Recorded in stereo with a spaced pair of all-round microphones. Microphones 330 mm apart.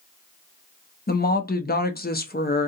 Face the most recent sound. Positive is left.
turn(degrees=30)  # may be behind; listen again after turning